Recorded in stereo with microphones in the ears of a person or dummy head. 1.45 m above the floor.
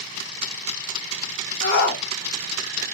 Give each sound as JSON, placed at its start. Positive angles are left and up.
{"t": 1.6, "sound": "a shout", "side_deg": 65, "distance_m": 1.1}